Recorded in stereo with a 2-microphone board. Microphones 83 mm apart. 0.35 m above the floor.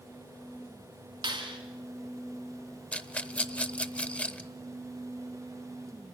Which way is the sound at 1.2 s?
75° right (ahead or behind).